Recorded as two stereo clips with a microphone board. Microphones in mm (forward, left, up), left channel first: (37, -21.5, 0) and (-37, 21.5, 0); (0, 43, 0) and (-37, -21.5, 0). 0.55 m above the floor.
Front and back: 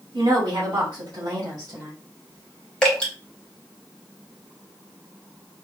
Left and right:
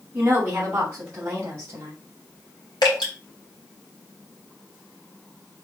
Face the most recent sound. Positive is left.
turn(degrees=50)